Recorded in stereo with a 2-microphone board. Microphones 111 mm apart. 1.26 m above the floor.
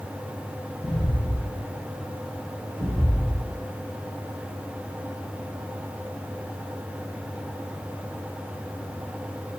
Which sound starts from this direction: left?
Footsteps, at 0.8 s.